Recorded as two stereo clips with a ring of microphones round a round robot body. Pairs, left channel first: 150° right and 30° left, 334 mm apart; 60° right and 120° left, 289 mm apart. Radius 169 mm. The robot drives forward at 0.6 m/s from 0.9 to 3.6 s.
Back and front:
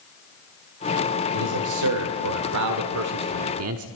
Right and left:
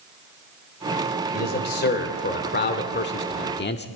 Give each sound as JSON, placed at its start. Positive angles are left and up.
{"t": 1.3, "sound": "a man speaking", "azimuth_deg": -5, "distance_m": 2.5}